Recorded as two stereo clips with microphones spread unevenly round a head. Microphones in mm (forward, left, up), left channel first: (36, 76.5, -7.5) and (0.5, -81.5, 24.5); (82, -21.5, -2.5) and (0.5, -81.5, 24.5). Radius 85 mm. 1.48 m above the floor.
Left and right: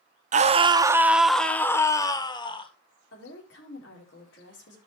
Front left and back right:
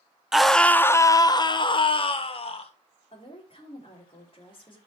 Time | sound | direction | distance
0.3 | a scream | 55° right | 0.9 m
3.1 | a woman speaking | 95° left | 4 m